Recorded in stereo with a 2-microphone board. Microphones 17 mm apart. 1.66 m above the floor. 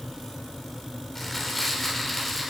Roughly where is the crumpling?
Left.